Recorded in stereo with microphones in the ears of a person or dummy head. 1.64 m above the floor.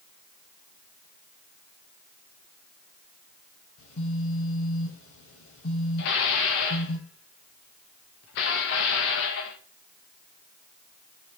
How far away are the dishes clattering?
About 1.1 m.